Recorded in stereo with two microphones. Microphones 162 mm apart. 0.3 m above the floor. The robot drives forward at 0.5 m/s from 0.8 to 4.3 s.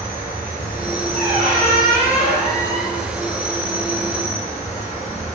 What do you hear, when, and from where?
0.0 s an insect: 65° left (ahead or behind), 1.4 m; by 5.4 s 50° left (ahead or behind), 1.7 m
1.1 s a squeak: 60° left (ahead or behind), 1.8 m; by 3.0 s 70° left (ahead or behind), 1.6 m